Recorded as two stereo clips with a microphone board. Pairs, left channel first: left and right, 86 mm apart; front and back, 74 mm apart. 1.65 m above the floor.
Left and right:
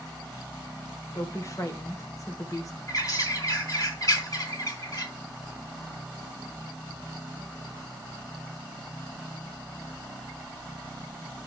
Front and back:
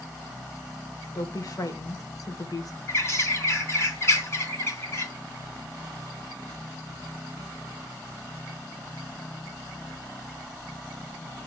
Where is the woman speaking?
40° left, 1.8 m.